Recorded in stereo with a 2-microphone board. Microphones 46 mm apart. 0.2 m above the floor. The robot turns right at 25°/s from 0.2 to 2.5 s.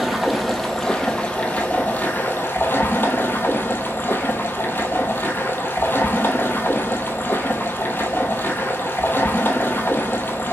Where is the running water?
5° right, 1.0 m; by 10.5 s 55° left, 1.0 m.